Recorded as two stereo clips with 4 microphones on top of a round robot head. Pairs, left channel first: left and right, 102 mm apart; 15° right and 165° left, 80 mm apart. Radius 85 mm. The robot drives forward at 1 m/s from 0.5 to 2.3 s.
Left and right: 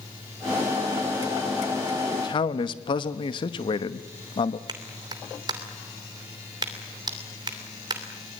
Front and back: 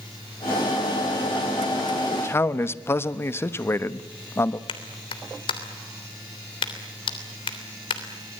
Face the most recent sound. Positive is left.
turn(degrees=-35)